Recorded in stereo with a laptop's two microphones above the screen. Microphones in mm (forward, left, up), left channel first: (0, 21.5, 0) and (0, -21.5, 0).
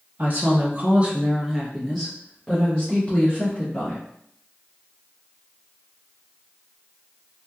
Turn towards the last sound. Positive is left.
turn(degrees=35)  # may be behind; listen again after turning